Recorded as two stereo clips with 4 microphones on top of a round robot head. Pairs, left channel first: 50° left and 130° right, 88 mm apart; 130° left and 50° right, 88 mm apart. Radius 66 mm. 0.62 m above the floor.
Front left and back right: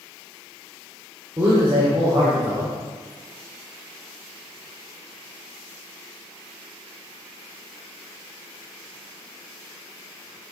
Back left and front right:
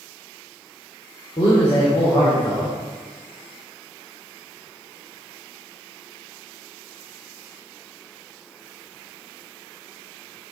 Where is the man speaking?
170° left, 2.5 m.